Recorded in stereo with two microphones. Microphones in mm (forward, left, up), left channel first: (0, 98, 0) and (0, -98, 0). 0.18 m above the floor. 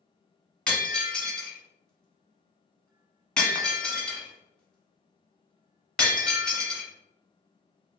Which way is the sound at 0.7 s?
5° left (ahead or behind).